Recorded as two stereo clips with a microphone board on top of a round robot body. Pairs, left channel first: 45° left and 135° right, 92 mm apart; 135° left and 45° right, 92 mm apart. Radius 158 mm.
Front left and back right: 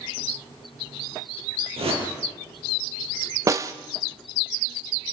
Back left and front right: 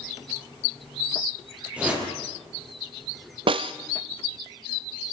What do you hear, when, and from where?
1.8 s a whoosh: 120° right, 6.5 m
3.5 s a snare drum: 75° right, 0.5 m